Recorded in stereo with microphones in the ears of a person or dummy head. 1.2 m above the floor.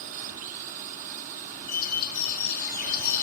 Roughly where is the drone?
Right.